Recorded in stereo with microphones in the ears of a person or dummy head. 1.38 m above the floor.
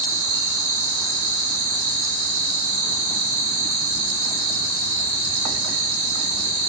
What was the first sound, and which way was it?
An insect, 65° right (ahead or behind).